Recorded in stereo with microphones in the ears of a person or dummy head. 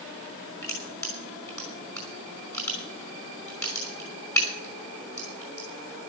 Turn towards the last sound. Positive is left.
turn(degrees=20)  # may be behind; listen again after turning